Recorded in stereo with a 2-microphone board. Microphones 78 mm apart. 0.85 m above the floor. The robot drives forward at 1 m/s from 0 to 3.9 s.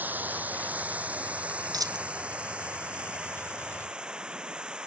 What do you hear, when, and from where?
0.0 s running water: 25° right (ahead or behind); by 4.9 s 10° right (ahead or behind)
1.7 s a dropped coin: 55° right (ahead or behind); by 2.1 s 50° right (ahead or behind)